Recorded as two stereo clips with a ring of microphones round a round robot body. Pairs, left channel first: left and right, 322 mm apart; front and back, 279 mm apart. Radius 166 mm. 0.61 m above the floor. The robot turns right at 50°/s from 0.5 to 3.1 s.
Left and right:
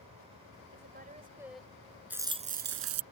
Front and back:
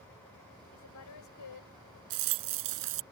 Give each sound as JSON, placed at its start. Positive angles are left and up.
{"t": 0.7, "sound": "a woman speaking", "azimuth_deg": -40}
{"t": 2.1, "sound": "a rattle", "azimuth_deg": -175}